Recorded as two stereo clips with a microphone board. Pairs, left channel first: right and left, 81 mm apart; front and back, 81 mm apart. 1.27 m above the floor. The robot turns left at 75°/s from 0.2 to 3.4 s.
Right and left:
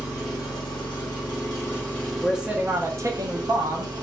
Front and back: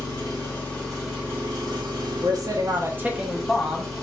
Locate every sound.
0.0 s an engine running: 35° right, 1.5 m; by 4.0 s 85° left, 1.5 m
2.2 s a man speaking: 175° right, 0.5 m; by 3.9 s 95° left, 0.5 m